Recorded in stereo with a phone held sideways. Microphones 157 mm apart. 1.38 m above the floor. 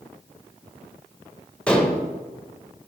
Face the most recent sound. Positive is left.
turn(degrees=5)  # may be behind; listen again after turning